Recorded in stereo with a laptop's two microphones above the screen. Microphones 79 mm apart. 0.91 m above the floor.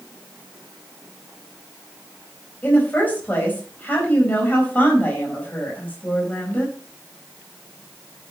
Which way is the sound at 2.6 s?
20° left (ahead or behind).